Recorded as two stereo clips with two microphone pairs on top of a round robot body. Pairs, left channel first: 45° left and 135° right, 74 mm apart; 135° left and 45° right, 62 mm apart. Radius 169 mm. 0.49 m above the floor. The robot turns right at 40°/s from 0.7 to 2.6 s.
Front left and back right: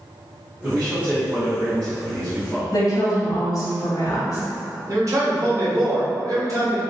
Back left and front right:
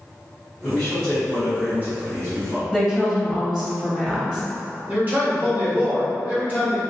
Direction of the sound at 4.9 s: 100° right.